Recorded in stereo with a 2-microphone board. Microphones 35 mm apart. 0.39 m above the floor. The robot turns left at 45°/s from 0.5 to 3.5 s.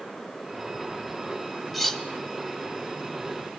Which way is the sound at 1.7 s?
Centre (ahead or behind).